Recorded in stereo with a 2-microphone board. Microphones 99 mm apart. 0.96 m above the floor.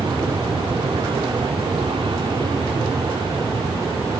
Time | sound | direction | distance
0.0 | an aircraft | 55° right (ahead or behind) | ?